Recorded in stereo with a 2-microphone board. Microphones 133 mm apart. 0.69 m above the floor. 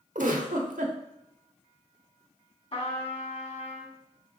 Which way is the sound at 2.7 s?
45° left (ahead or behind).